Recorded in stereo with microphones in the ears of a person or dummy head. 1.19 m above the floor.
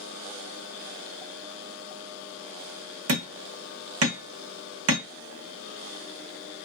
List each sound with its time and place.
3.1 s hammering: 80° right, 1.1 m